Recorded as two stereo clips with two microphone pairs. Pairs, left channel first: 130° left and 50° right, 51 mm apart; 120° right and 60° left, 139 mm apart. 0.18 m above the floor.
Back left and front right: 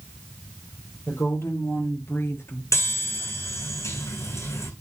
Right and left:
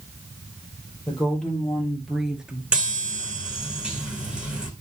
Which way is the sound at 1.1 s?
155° left.